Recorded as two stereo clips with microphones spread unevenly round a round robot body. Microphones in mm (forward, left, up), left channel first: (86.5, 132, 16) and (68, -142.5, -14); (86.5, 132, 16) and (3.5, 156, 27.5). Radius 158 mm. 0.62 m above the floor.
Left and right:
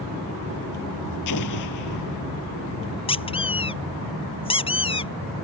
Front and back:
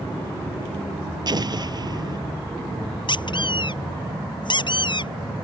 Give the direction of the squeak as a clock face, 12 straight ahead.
11 o'clock.